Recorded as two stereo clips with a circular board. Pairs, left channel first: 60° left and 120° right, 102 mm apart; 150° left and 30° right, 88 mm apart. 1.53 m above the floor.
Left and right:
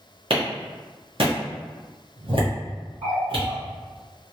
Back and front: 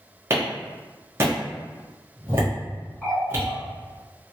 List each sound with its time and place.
0.3 s a clap: 90° right, 1.1 m
3.0 s a running tap: 130° right, 1.8 m